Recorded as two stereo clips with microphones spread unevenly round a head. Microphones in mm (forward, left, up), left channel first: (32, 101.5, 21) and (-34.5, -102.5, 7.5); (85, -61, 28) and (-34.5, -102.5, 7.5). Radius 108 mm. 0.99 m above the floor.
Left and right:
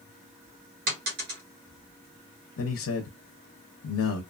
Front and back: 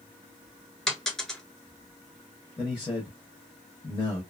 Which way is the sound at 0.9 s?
60° right.